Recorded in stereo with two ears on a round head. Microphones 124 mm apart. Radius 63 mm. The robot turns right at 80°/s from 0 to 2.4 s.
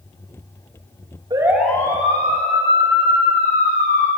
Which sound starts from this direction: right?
A siren, at 1.3 s.